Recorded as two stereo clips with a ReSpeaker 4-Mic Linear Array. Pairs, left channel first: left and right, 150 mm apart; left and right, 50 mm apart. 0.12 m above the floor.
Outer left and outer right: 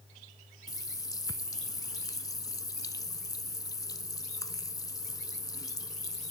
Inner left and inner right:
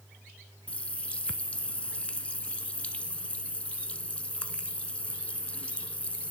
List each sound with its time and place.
0.7 s a running tap: 20° left (ahead or behind), 0.8 m